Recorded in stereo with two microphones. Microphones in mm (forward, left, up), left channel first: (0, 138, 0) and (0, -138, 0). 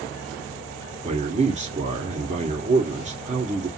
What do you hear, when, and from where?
1.0 s a man speaking: 25° right (ahead or behind), 1.4 m